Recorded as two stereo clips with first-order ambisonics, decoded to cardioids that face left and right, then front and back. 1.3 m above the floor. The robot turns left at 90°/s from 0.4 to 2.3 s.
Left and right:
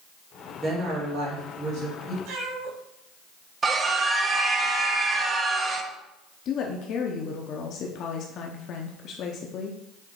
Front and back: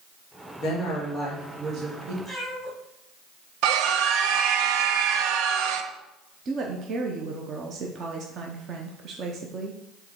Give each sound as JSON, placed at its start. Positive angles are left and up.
{"t": 0.6, "sound": "a woman speaking", "azimuth_deg": -25, "distance_m": 2.5}
{"t": 2.2, "sound": "a cat meowing", "azimuth_deg": -85, "distance_m": 3.5}
{"t": 3.6, "sound": "a scream", "azimuth_deg": -160, "distance_m": 0.8}
{"t": 6.5, "sound": "a woman speaking", "azimuth_deg": 125, "distance_m": 0.7}